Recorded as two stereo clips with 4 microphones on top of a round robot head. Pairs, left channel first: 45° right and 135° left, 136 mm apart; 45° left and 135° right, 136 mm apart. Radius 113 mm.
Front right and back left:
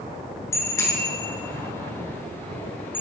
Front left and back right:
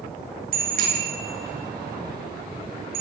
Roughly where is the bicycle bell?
Behind right.